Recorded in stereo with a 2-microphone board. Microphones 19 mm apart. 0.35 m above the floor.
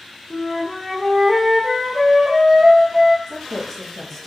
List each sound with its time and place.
0.3 s a flute: 35° right (ahead or behind), 2 m
3.3 s a woman speaking: 25° left (ahead or behind), 1.7 m